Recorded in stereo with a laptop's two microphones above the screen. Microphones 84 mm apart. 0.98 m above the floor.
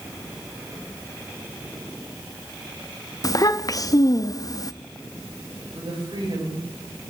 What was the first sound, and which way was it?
A child speaking, 45° left (ahead or behind).